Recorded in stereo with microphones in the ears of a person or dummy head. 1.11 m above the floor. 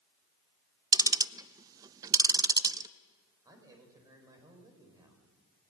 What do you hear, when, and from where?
0.9 s ticking: 20° right (ahead or behind), 0.5 m
3.5 s a man speaking: 15° right (ahead or behind), 5.5 m